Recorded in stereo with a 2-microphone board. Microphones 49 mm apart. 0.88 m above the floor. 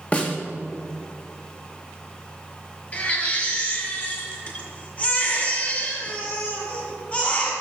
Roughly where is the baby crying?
Left.